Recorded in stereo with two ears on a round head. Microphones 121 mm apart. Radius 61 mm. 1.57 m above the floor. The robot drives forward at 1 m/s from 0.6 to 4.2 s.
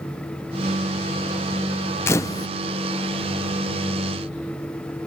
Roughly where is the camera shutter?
Centre.